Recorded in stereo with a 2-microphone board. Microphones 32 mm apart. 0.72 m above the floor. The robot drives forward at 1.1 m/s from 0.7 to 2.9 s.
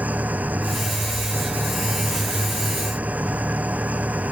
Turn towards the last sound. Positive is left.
turn(degrees=-50)  # may be behind; listen again after turning